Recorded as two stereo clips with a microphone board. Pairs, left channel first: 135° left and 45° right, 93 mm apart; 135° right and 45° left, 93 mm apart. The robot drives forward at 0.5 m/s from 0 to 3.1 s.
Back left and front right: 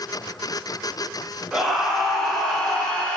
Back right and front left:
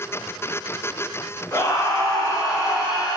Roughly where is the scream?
Behind right.